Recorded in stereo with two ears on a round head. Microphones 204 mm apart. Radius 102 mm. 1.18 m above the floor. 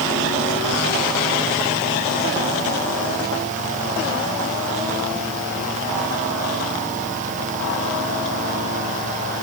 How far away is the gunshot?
No gunshot in this recording.